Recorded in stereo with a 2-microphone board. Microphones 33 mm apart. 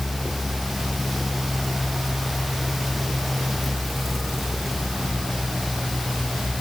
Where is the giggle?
No giggle in this recording.